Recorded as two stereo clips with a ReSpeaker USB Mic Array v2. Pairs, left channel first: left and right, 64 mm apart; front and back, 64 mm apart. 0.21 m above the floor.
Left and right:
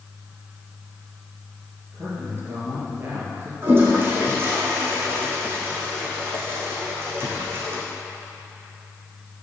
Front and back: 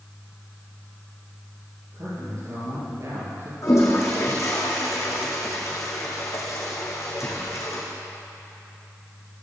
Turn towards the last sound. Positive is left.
turn(degrees=-40)